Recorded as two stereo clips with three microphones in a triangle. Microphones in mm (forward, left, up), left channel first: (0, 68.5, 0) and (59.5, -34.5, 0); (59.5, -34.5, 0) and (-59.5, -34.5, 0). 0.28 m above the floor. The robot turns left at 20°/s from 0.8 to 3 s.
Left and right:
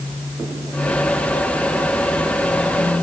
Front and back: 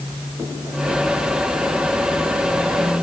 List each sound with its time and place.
Only background noise.